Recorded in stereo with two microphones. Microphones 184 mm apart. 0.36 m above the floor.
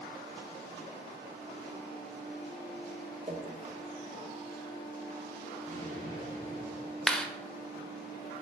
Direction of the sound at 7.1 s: 5° left (ahead or behind).